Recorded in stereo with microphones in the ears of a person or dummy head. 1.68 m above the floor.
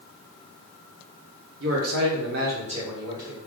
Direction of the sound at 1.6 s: 65° right (ahead or behind).